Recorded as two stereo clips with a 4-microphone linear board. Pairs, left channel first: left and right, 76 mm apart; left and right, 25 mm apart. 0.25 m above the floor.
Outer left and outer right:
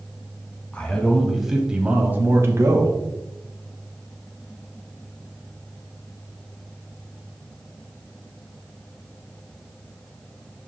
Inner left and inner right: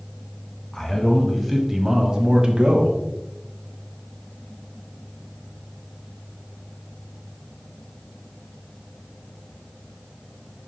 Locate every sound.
0.7 s a man speaking: 15° left (ahead or behind), 1.5 m; by 3.0 s 45° right (ahead or behind), 1.7 m